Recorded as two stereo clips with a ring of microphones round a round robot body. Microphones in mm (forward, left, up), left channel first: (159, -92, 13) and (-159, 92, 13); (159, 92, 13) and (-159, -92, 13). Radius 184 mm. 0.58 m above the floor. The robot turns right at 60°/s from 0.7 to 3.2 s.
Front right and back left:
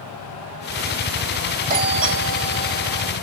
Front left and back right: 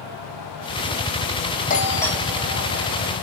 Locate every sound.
1.7 s a doorbell: 90° left, 1.8 m; by 3.1 s 175° left, 1.8 m